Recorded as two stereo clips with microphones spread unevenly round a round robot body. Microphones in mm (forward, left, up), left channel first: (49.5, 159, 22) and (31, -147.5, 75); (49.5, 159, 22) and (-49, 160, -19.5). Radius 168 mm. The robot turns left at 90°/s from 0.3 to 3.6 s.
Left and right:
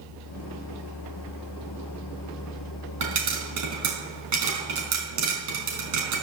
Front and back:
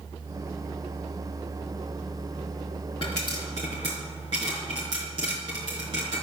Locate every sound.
3.0 s a pop: 80° right, 4 m; by 6.2 s 130° right, 4 m